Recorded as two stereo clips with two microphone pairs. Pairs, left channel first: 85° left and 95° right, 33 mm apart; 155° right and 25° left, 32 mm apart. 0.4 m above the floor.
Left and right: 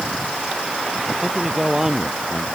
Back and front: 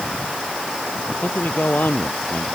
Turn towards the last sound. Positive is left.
turn(degrees=-175)